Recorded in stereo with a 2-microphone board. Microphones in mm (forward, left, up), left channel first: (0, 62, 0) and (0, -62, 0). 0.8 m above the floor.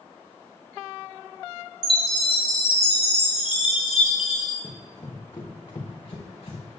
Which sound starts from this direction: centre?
Running footsteps, at 4.6 s.